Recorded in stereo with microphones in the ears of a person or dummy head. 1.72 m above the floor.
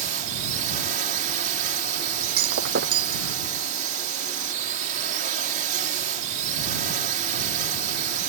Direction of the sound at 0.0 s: 40° right (ahead or behind).